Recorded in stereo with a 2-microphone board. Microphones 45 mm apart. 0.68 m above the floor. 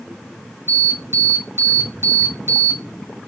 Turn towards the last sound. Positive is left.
turn(degrees=-65)  # may be behind; listen again after turning